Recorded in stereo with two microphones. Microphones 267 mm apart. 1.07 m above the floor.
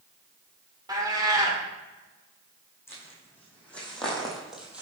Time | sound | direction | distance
0.9 | a cat meowing | 15° right (ahead or behind) | 1.4 m
2.9 | footsteps | 10° left (ahead or behind) | 4 m